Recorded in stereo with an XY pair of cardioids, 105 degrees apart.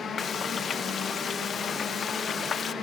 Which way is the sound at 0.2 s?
50° left.